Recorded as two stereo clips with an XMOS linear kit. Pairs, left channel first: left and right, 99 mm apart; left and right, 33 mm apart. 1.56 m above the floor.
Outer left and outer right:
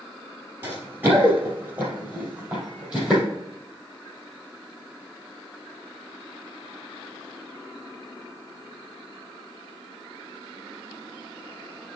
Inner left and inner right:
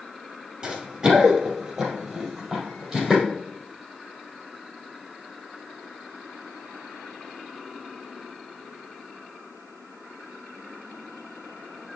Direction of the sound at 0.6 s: 20° right (ahead or behind).